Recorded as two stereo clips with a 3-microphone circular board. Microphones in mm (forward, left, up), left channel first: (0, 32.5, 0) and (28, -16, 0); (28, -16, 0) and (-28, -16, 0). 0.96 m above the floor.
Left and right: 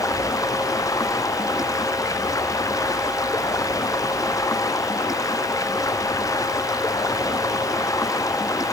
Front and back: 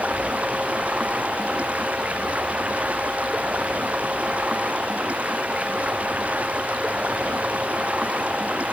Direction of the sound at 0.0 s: 115° left.